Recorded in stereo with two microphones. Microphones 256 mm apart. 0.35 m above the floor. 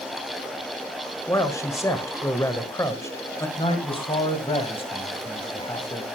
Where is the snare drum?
I don't hear a snare drum.